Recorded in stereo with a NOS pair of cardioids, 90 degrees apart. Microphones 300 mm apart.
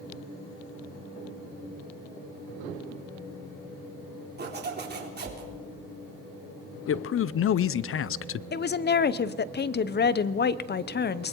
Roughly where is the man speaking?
Ahead left.